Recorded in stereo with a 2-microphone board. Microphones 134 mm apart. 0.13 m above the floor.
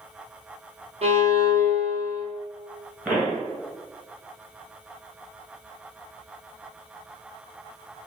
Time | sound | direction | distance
1.0 | a violin | 50° right (ahead or behind) | 1.0 m
3.0 | a pop | 10° right (ahead or behind) | 1.2 m